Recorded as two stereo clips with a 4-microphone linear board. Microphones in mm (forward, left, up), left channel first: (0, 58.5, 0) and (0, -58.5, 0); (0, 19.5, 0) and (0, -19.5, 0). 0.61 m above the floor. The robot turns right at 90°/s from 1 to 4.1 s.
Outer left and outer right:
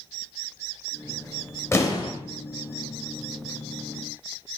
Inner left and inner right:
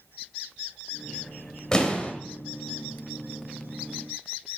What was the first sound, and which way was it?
An explosion, 35° left.